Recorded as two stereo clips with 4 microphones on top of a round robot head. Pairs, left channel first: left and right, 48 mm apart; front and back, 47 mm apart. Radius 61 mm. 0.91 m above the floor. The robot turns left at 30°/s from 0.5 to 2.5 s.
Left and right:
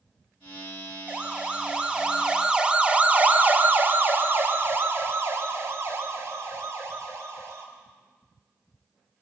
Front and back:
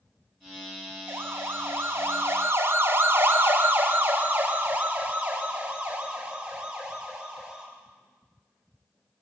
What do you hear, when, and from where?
1.1 s a siren: 150° right, 2 m; by 7.7 s 105° right, 5 m